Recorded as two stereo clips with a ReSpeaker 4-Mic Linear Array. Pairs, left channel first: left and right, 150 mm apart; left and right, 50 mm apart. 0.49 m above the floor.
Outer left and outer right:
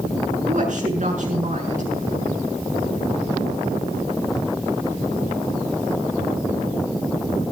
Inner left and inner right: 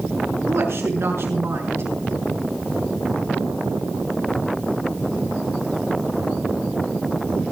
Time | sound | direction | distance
0.5 | a woman speaking | 65° right (ahead or behind) | 7 m